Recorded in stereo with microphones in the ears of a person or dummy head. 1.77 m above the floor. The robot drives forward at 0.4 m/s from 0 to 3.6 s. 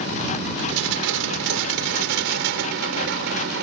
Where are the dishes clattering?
75° right (ahead or behind); by 3.6 s 65° right (ahead or behind).